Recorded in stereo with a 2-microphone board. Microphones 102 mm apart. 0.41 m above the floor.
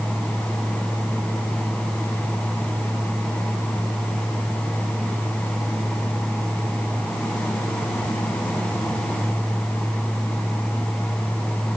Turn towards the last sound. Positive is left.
No sound to turn to.